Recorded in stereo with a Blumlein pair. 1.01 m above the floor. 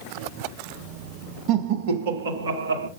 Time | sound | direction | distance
1.5 | laughter | 35° right | 1.1 m